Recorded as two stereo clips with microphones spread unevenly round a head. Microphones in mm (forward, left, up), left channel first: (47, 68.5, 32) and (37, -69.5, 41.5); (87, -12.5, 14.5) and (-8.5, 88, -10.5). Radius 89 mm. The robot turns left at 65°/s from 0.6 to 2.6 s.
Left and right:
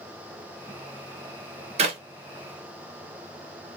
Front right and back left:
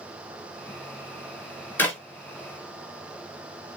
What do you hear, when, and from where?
1.8 s a clap: 105° right, 0.9 m; by 2.0 s 120° right, 0.9 m